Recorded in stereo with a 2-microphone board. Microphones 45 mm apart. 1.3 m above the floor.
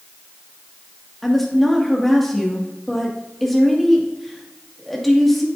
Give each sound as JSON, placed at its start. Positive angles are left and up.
{"t": 1.2, "sound": "a woman speaking", "side_deg": 0, "distance_m": 2.0}